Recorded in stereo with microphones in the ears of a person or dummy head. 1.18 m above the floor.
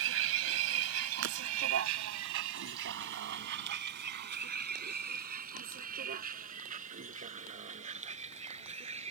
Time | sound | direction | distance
0.0 | a vehicle | 75° right (ahead or behind) | ?
1.2 | breaking glass | 70° right (ahead or behind) | ?